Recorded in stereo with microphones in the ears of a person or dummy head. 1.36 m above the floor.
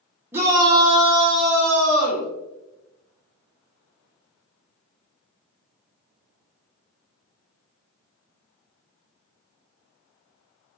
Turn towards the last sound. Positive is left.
turn(degrees=-45)  # may be behind; listen again after turning